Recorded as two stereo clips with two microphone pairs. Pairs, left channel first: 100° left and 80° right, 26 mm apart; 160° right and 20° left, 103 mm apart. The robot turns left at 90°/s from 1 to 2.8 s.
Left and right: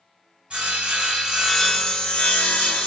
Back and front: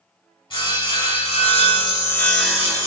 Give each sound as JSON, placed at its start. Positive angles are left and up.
{"t": 0.5, "sound": "sawing", "azimuth_deg": -120, "distance_m": 1.6}